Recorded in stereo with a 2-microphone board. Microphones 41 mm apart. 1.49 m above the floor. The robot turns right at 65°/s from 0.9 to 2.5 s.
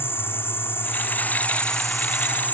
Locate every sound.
0.0 s an insect: 115° left; by 2.5 s 140° right